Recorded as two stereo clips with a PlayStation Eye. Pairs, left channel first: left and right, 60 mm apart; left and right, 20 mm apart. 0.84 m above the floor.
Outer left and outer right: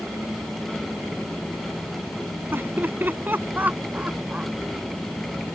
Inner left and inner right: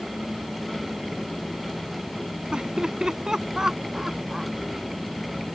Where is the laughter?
40° right (ahead or behind); by 4.5 s 20° right (ahead or behind).